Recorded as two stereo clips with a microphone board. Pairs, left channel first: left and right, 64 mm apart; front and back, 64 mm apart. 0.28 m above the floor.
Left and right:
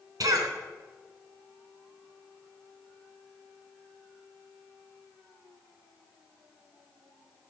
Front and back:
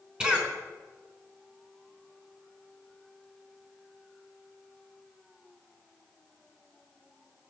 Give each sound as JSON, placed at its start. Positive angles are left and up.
{"t": 0.2, "sound": "a cough", "azimuth_deg": -105, "distance_m": 3.5}